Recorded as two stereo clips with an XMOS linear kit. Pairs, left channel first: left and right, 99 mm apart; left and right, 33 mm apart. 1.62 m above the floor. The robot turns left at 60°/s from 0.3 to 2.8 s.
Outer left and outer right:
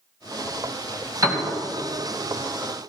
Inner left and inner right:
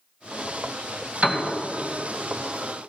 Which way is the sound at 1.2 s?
35° right (ahead or behind).